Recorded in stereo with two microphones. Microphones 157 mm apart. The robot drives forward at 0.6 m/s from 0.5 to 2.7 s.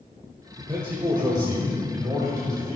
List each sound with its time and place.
0.6 s a man speaking: 35° right (ahead or behind), 1.2 m; by 2.8 s 20° right (ahead or behind), 2 m